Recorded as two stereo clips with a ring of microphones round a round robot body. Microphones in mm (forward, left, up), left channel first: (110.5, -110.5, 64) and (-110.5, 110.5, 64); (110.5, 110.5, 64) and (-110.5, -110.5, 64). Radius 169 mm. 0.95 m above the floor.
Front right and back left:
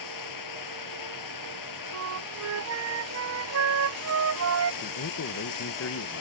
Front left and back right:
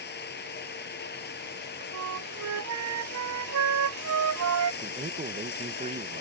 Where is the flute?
Straight behind.